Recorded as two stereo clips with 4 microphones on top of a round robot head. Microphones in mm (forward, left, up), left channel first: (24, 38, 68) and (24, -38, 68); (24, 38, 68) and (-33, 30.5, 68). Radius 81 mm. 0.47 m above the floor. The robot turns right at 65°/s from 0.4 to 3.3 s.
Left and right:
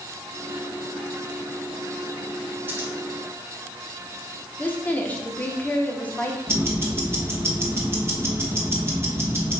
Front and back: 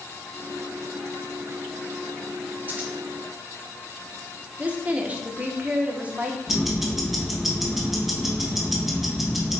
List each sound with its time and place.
2.7 s scissors: 135° right, 1.5 m; by 2.9 s 120° right, 1.5 m
4.6 s a woman speaking: 145° left, 0.9 m
6.5 s ticking: 90° right, 1.3 m